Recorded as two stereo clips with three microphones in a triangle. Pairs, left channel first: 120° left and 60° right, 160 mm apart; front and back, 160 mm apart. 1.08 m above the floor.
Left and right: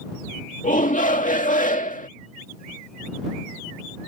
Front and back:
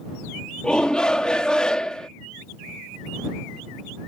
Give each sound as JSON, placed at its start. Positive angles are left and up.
{"t": 0.6, "sound": "a shout", "azimuth_deg": 85}